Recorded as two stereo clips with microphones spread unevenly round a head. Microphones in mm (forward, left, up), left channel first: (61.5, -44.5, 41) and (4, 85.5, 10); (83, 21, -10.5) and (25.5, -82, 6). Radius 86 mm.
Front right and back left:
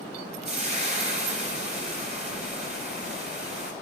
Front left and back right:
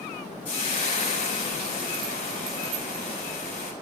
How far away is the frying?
About 3 m.